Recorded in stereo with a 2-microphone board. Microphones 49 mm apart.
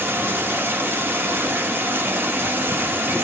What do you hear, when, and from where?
0.0 s running water: 45° right (ahead or behind), 1.2 m